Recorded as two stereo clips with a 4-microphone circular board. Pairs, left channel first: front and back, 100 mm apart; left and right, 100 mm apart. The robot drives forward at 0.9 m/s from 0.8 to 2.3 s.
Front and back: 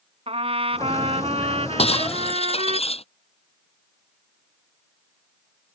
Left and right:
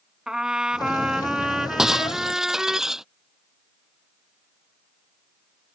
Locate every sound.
0.3 s a trumpet: 175° right
1.8 s breaking glass: 5° right